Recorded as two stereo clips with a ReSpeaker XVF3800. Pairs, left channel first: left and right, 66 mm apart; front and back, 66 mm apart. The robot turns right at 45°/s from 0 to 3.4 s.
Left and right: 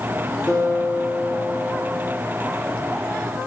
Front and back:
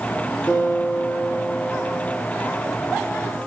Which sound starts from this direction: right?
A guitar, at 0.5 s.